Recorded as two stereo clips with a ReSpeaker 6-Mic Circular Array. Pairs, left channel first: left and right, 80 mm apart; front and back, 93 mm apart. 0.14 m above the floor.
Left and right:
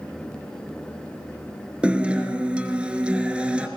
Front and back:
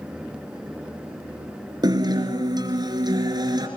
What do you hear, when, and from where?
1.8 s a guitar: 165° right, 2.5 m